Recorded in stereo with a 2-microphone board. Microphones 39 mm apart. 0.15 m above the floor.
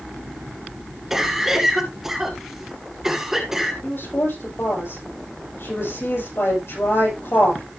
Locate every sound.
1.1 s a cough: 5° right (ahead or behind), 2 m
3.8 s a woman speaking: 80° left, 7.5 m